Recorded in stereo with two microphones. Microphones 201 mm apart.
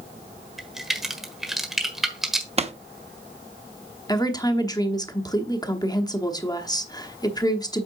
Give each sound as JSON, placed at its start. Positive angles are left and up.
{"t": 0.6, "sound": "a crack", "side_deg": 0, "distance_m": 1.3}
{"t": 2.6, "sound": "a pop", "side_deg": -30, "distance_m": 0.7}
{"t": 4.1, "sound": "a woman speaking", "side_deg": 20, "distance_m": 0.9}